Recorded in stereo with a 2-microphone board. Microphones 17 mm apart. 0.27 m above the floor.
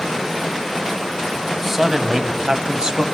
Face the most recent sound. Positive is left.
turn(degrees=-50)  # may be behind; listen again after turning